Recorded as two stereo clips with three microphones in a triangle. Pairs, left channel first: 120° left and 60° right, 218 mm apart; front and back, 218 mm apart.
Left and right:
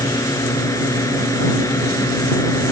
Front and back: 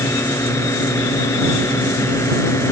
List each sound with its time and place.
0.0 s a drone: 60° left